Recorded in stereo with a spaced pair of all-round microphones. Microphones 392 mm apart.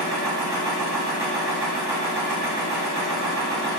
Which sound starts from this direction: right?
A machine running, at 0.0 s.